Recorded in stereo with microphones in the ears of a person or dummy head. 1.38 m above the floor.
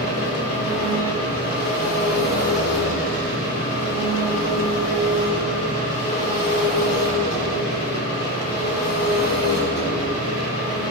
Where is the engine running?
75° left (ahead or behind), 2.5 m.